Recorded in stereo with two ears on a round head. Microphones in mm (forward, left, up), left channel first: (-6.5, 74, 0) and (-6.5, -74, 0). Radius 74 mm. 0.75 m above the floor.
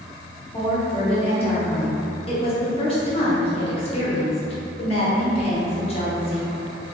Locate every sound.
0.5 s a woman speaking: 35° left (ahead or behind), 0.8 m